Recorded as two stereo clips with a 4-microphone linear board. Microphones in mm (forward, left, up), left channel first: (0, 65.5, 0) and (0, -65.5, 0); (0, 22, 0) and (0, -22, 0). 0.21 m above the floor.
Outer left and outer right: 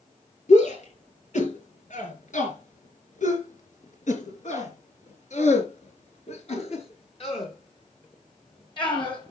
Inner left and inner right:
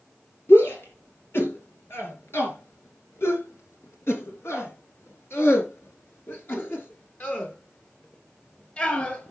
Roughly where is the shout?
Left.